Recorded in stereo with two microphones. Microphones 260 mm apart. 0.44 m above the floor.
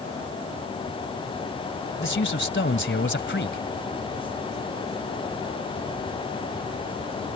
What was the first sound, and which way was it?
A man speaking, 45° left (ahead or behind).